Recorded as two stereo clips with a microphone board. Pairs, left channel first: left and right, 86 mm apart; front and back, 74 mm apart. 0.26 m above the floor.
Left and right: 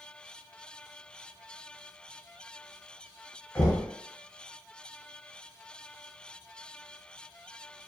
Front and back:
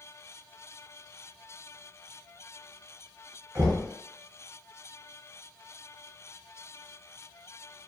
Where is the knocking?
145° left, 1.0 m.